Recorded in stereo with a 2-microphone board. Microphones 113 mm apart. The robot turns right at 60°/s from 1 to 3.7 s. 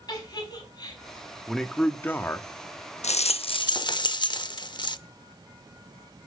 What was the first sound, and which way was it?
A giggle, 40° left (ahead or behind).